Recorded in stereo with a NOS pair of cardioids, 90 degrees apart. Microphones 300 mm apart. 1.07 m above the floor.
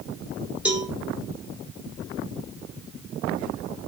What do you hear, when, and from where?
0.7 s a cowbell: 5° right, 1.3 m